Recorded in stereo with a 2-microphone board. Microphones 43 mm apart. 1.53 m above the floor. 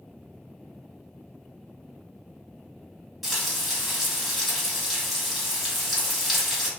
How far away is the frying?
About 1.5 m.